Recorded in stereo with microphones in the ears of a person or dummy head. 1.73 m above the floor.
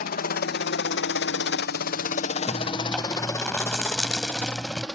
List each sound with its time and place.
0.0 s a helicopter: 50° left (ahead or behind); by 5.0 s centre (ahead or behind)
2.5 s chewing: centre (ahead or behind)